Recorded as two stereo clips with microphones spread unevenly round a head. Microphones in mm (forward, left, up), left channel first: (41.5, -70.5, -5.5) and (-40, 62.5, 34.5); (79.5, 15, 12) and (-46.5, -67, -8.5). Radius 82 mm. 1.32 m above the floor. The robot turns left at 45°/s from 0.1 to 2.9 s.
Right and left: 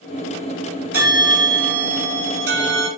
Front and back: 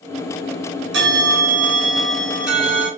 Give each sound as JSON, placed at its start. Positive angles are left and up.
{"t": 0.9, "sound": "a bell", "azimuth_deg": -165, "distance_m": 3.0}